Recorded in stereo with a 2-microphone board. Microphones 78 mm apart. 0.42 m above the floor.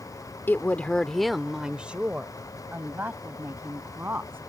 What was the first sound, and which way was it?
A woman speaking, 25° left (ahead or behind).